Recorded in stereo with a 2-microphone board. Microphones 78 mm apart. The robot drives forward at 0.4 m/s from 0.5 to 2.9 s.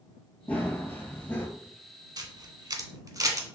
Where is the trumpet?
No trumpet in this recording.